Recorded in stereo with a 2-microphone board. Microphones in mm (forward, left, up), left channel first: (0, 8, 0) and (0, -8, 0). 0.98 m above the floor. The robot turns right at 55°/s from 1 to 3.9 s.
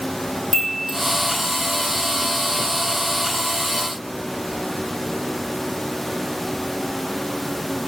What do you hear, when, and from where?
0.5 s a chime: 20° left (ahead or behind), 1.1 m